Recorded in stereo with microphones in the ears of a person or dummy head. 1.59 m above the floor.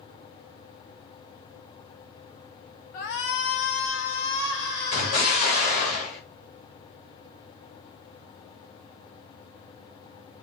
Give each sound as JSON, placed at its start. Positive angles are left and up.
{"t": 2.9, "sound": "a shout", "side_deg": 45, "distance_m": 0.7}
{"t": 4.9, "sound": "an explosion", "side_deg": 45, "distance_m": 1.9}